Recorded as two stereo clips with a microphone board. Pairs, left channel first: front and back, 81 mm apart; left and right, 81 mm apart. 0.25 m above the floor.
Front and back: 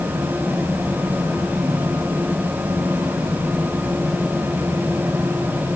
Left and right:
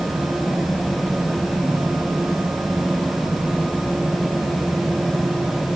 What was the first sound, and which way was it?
Only background noise.